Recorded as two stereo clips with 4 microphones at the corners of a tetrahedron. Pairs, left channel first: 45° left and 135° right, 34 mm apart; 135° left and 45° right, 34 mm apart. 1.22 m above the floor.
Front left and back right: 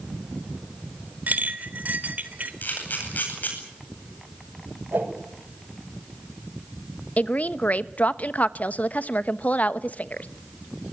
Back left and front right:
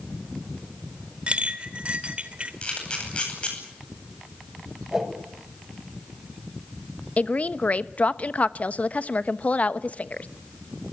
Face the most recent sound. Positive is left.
turn(degrees=85)